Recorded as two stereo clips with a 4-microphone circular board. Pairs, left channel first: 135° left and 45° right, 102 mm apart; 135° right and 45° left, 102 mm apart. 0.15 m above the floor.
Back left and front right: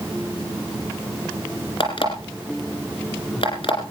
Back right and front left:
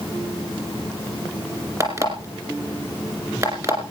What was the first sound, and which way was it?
An alarm clock, 100° left.